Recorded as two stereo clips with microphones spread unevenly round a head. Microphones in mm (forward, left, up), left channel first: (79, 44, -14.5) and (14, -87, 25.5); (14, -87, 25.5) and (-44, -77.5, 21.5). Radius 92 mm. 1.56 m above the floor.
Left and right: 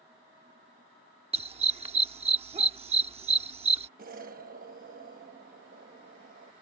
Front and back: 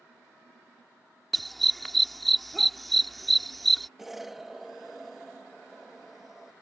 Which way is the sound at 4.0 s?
100° right.